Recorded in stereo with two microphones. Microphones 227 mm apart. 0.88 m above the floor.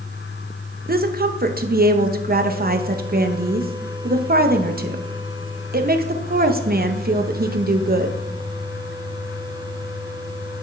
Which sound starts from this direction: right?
A woman speaking, at 0.9 s.